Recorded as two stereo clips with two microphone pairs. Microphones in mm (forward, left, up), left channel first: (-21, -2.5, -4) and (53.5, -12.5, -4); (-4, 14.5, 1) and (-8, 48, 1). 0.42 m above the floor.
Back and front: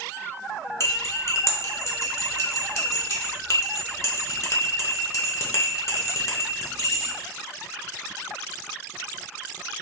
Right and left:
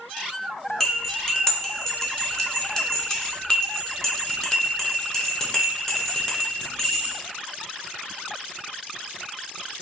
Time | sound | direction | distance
0.8 | cutlery clinking | 160° right | 0.7 m